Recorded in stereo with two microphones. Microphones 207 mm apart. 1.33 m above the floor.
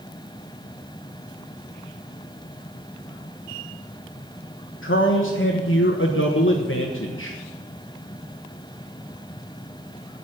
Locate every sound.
4.8 s a man speaking: 80° left, 1.3 m